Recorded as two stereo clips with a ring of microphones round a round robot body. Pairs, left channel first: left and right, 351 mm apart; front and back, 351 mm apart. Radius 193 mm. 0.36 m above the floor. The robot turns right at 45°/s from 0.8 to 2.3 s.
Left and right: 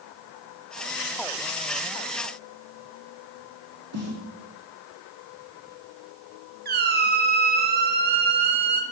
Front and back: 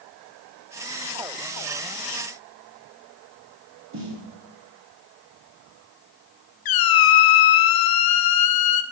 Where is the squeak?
25° right, 0.8 m.